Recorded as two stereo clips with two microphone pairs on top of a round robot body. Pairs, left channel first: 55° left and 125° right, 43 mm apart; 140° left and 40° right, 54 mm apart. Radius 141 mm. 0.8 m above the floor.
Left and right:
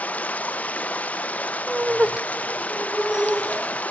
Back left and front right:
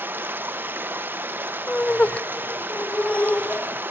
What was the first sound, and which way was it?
Running water, 10° left.